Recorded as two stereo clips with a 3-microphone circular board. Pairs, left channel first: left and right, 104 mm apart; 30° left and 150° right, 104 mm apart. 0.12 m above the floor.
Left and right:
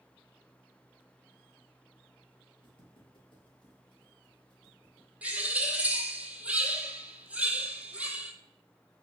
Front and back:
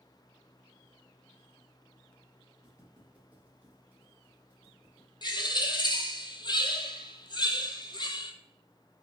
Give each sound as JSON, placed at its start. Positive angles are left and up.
{"t": 2.6, "sound": "footsteps", "azimuth_deg": 130, "distance_m": 2.5}
{"t": 5.2, "sound": "a bird", "azimuth_deg": -15, "distance_m": 1.0}